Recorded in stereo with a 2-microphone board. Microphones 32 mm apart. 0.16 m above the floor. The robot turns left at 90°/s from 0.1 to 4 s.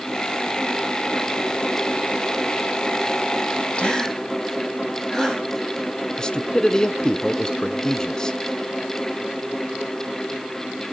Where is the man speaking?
25° left (ahead or behind), 1.4 m.